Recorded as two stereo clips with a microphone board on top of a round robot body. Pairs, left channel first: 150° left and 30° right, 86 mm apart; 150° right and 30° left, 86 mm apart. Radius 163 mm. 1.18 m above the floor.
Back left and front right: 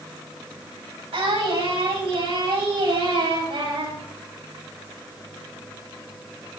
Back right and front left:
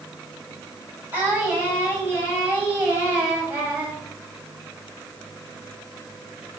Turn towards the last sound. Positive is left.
turn(degrees=-40)